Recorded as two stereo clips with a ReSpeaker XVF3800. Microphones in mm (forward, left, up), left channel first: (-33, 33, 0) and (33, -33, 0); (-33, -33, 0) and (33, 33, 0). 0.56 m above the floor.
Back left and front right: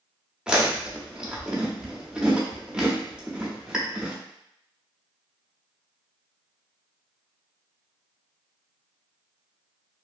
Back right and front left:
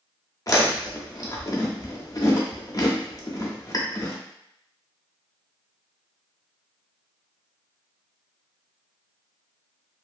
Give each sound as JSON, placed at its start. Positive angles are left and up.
{"t": 0.5, "sound": "chewing", "azimuth_deg": -120, "distance_m": 0.6}